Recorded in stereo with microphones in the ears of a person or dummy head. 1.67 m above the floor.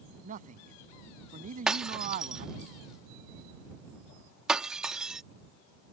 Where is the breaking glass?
5° right (ahead or behind).